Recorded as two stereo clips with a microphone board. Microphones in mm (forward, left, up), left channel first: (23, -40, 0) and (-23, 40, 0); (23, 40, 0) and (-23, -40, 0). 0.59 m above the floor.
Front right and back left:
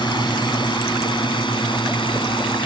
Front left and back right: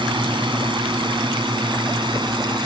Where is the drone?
95° right; by 2.7 s 85° right.